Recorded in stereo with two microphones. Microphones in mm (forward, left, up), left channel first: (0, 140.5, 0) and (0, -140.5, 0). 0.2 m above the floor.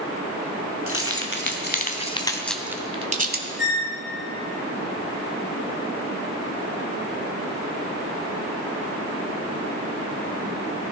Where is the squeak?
40° left (ahead or behind), 1.7 m.